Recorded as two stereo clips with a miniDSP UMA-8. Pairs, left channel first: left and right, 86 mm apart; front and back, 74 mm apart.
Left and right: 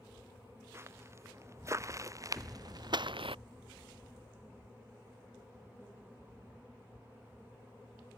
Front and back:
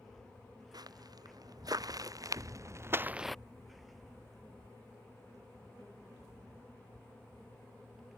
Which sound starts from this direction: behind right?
Footsteps, at 0.7 s.